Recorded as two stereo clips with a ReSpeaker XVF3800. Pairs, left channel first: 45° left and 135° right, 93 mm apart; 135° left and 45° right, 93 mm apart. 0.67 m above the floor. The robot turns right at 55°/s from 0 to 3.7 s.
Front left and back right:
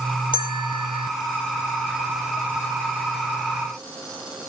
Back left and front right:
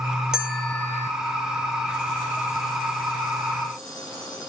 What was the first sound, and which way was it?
A bell, 35° left.